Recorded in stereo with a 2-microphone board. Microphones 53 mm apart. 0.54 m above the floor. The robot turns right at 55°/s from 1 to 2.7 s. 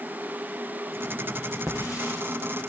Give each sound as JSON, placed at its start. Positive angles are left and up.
{"t": 1.7, "sound": "a hiss", "azimuth_deg": -55, "distance_m": 7.5}